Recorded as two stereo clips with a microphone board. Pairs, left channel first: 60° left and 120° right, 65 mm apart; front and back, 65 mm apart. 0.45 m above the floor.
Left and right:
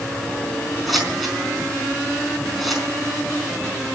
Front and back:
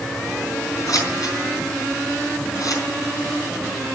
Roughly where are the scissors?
Ahead right.